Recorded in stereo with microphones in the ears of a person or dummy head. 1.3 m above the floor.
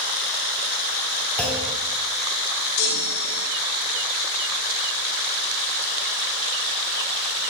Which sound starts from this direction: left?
A chime, at 2.8 s.